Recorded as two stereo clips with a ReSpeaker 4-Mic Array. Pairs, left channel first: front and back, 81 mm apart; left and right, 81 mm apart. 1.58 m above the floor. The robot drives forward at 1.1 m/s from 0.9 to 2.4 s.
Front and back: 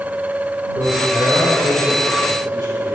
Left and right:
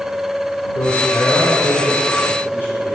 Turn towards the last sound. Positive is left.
turn(degrees=150)